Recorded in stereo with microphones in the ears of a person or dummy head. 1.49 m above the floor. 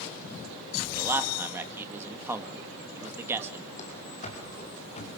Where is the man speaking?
10° right (ahead or behind), 1.9 m.